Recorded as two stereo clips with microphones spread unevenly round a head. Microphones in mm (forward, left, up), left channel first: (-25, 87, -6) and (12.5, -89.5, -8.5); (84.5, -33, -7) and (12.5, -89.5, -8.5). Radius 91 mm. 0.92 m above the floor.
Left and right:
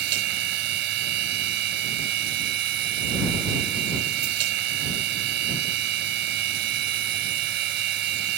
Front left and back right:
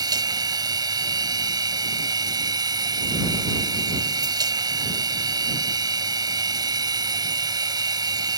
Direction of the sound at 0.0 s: 105° right.